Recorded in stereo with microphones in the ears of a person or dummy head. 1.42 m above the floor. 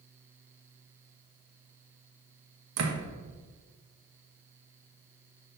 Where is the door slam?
80° right, 1.3 m.